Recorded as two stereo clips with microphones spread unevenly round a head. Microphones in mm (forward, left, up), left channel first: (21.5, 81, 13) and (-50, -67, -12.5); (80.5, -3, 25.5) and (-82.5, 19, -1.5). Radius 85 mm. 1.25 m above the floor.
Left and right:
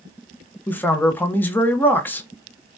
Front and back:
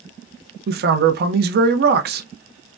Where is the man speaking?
145° left, 0.6 m.